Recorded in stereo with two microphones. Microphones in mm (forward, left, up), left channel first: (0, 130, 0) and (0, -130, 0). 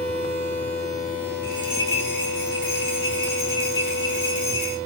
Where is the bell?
45° right (ahead or behind), 3 m.